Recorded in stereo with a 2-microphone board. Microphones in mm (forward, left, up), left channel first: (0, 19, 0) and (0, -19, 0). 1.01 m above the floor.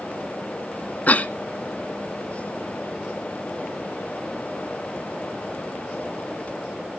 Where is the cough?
40° left (ahead or behind), 0.9 m.